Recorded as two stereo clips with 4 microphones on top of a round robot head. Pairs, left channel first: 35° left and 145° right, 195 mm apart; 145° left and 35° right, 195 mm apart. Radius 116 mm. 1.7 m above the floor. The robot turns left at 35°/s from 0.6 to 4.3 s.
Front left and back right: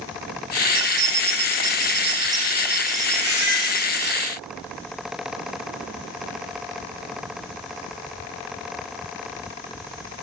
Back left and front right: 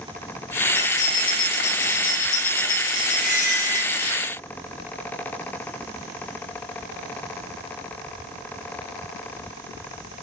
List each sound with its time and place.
0.8 s keys jangling: 155° right, 0.9 m; by 4.1 s 85° left, 0.9 m
3.1 s a squeak: 100° left, 6.5 m; by 3.9 s 70° left, 6.5 m